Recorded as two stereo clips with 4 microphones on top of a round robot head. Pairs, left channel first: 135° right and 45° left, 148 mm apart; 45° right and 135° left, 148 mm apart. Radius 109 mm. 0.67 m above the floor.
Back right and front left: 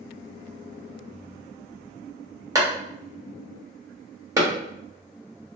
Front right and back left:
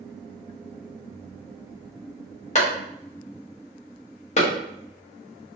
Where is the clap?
20° right, 1.3 m.